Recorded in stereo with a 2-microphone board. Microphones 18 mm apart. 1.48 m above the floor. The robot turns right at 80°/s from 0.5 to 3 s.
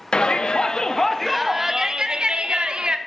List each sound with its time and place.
0.1 s a shout: 110° left, 0.7 m; by 3.0 s 55° right, 0.7 m